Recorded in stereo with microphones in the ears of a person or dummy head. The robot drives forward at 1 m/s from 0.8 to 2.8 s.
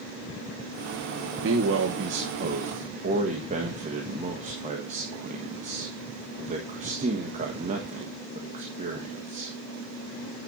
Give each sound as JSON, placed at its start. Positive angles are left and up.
{"t": 1.4, "sound": "a man speaking", "side_deg": -70, "distance_m": 1.2}